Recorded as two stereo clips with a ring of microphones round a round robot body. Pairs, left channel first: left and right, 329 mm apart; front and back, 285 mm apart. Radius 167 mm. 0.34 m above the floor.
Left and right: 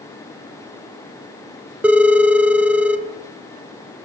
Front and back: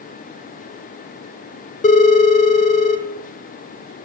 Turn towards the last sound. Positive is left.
turn(degrees=-10)